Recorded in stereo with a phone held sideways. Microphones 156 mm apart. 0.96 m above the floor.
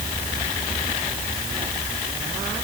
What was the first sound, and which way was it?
Only background noise.